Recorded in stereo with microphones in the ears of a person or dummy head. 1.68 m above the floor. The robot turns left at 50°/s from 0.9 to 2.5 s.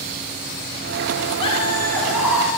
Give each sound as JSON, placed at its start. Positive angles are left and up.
{"t": 1.4, "sound": "laughter", "azimuth_deg": 35, "distance_m": 5.0}